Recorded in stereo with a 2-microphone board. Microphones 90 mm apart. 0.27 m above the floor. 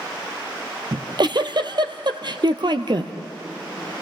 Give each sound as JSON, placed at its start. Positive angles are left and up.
{"t": 0.9, "sound": "a giggle", "side_deg": -55, "distance_m": 1.0}